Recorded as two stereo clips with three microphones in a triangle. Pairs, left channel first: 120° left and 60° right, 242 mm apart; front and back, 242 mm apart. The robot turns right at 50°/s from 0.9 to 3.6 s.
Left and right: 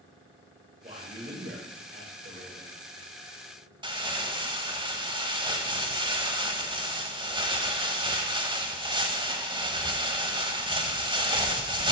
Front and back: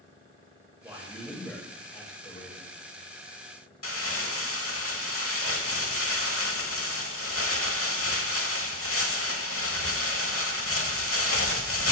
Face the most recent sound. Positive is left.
turn(degrees=5)